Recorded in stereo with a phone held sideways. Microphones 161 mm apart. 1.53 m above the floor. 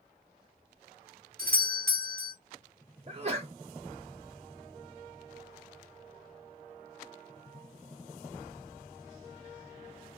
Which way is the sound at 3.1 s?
40° right (ahead or behind).